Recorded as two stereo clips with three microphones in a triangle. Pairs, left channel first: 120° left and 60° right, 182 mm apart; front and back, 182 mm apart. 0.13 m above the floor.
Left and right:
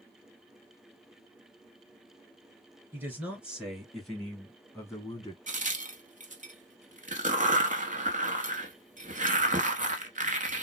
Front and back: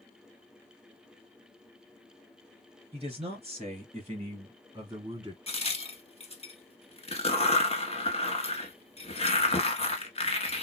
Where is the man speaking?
135° right, 2 m; by 5.4 s 145° left, 1.5 m.